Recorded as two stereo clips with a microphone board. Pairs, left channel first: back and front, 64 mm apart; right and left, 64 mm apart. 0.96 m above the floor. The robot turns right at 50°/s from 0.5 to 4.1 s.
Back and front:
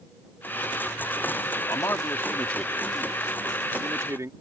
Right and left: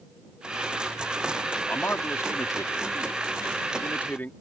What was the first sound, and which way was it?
A man speaking, 155° right.